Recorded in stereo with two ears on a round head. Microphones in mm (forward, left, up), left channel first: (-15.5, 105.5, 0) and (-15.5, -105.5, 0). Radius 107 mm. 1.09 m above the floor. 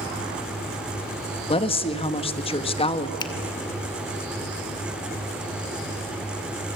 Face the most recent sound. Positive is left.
turn(degrees=20)  # may be behind; listen again after turning